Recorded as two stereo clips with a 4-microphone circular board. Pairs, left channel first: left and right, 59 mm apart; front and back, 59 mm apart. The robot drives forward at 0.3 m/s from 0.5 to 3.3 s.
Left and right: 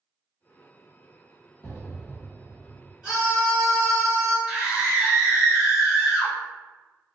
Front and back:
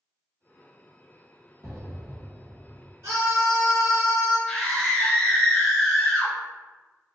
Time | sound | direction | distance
1.6 | an explosion | 145° left | 1.6 m
3.0 | a scream | 170° right | 1.9 m
4.5 | a scream | 40° right | 1.6 m